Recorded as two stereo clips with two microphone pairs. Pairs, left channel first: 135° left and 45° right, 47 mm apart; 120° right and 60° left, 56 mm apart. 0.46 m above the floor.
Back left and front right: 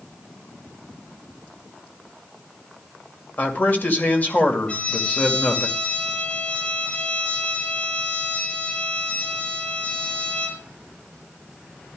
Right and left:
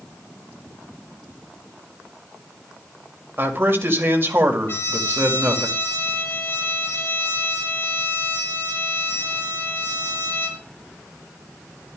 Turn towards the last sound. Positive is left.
turn(degrees=-165)